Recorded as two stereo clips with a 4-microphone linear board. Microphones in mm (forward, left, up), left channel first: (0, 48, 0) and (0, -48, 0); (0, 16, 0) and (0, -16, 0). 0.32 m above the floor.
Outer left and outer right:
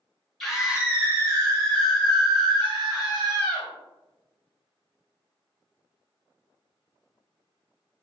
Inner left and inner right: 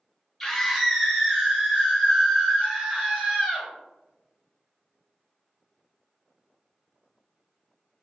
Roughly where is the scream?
Centre.